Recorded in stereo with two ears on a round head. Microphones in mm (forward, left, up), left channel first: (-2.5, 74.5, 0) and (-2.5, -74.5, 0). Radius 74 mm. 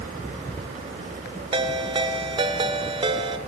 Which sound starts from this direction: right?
A ringtone, at 1.5 s.